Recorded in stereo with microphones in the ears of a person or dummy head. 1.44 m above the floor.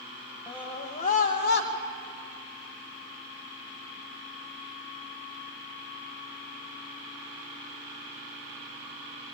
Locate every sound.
0.5 s a scream: 15° left (ahead or behind), 1.3 m; by 1.7 s 55° left (ahead or behind), 1.6 m